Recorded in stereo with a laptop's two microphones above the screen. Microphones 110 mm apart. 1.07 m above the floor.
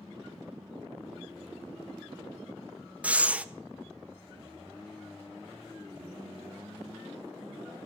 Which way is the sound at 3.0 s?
10° right (ahead or behind).